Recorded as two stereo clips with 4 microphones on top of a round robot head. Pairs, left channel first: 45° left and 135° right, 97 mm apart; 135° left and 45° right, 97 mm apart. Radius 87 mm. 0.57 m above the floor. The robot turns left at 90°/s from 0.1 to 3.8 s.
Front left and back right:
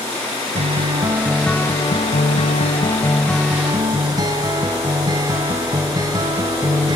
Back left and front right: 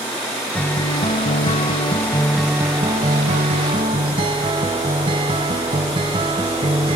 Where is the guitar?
150° right, 1.4 m; by 7.0 s 80° right, 1.4 m.